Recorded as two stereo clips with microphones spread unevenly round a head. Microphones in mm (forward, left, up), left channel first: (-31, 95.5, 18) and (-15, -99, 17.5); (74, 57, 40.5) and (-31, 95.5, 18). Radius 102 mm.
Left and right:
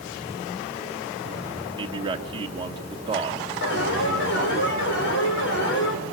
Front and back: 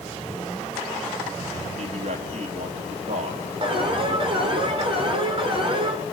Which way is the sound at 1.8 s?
150° right.